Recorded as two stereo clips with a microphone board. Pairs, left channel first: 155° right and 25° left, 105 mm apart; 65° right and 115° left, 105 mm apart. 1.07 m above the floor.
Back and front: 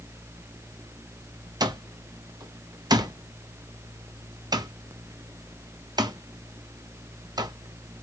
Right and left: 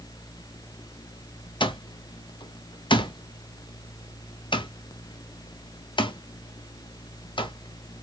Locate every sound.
1.6 s an alarm clock: 25° right, 0.6 m